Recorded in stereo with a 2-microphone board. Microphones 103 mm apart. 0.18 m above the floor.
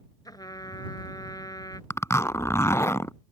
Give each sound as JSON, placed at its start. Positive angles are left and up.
{"t": 0.2, "sound": "a trumpet", "side_deg": 40}
{"t": 1.9, "sound": "a zipper", "side_deg": 30}